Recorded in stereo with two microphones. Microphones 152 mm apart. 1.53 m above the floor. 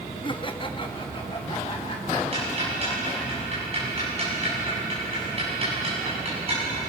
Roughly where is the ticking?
Right.